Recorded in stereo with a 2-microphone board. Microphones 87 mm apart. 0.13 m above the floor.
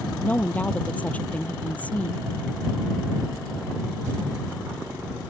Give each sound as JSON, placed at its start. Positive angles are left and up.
{"t": 0.2, "sound": "a woman speaking", "side_deg": 15}